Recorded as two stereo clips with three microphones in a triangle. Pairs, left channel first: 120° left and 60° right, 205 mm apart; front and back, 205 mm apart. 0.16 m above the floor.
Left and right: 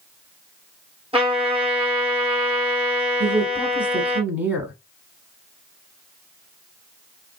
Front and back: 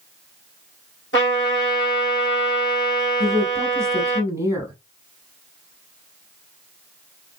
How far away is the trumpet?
About 2 m.